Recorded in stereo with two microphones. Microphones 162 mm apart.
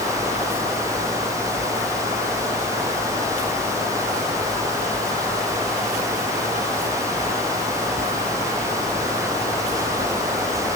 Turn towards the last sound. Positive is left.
No sound to turn to.